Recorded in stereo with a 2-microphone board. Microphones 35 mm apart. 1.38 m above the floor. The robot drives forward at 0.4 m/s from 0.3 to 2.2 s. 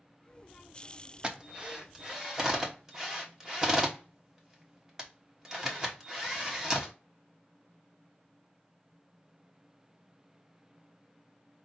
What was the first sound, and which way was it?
A drill, 25° right (ahead or behind).